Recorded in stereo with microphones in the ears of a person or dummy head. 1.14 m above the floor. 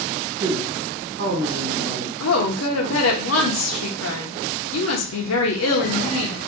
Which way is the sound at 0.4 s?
65° right (ahead or behind).